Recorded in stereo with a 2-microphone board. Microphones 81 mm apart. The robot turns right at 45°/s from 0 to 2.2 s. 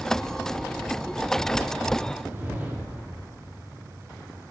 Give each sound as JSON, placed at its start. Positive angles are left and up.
{"t": 2.2, "sound": "a whoosh", "side_deg": -20, "distance_m": 1.2}